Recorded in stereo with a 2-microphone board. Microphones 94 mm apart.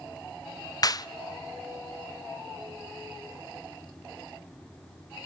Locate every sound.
0.8 s a clap: 45° left (ahead or behind), 0.6 m